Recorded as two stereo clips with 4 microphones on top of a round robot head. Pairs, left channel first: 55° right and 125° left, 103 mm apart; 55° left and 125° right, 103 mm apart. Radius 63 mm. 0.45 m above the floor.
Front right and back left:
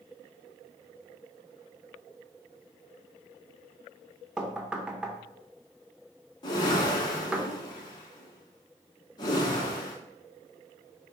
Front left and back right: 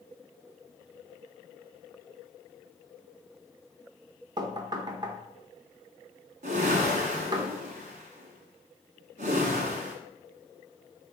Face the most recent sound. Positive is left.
turn(degrees=-110)